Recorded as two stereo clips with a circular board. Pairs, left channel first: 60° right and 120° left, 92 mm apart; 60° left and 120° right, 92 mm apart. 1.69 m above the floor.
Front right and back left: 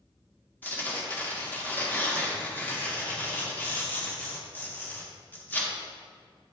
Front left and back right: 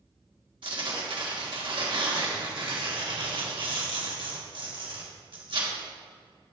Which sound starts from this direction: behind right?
Tearing paper, at 0.6 s.